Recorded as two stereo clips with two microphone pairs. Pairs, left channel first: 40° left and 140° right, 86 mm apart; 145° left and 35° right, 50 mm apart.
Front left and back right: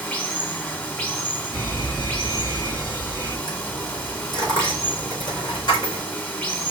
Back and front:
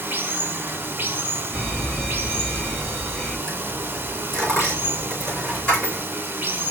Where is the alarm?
70° left, 3.5 m.